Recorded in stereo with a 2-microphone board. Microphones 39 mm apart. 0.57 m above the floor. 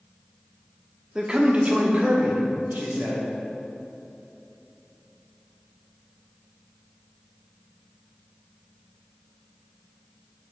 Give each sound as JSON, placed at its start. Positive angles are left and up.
{"t": 1.1, "sound": "a man speaking", "side_deg": -25, "distance_m": 0.8}